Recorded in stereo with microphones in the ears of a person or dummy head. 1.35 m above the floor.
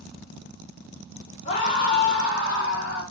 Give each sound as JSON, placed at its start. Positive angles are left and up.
{"t": 1.4, "sound": "a scream", "side_deg": 40, "distance_m": 1.3}